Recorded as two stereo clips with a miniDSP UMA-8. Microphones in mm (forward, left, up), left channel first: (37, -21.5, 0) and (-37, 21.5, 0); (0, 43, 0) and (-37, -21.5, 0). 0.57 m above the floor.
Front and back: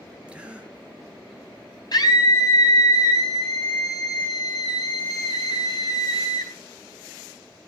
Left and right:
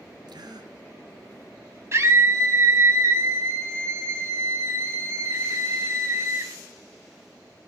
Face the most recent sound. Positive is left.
turn(degrees=-70)